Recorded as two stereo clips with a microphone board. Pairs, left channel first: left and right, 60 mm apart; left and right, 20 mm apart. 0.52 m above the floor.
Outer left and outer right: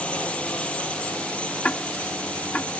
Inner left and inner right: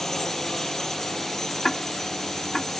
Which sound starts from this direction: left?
Ticking, at 1.6 s.